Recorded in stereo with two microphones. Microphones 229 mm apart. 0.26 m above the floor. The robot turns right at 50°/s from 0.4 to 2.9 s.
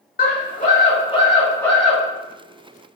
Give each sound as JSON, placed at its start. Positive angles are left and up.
{"t": 0.2, "sound": "a scream", "azimuth_deg": 105, "distance_m": 1.6}